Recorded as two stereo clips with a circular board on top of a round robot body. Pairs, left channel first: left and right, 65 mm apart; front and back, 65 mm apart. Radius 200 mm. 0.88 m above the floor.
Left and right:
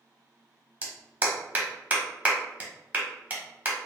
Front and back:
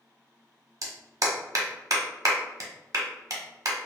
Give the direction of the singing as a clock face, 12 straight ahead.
I don't hear singing.